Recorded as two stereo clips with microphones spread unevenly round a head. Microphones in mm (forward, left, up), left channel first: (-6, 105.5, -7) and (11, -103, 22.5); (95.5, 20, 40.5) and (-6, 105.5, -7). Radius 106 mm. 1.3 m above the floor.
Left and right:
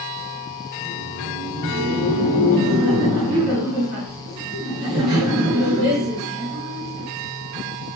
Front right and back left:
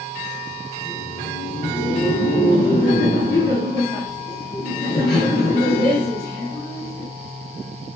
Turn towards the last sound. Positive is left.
turn(degrees=-65)